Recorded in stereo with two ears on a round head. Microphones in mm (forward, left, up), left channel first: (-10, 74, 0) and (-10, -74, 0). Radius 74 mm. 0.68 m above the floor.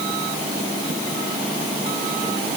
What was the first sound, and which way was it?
Only background noise.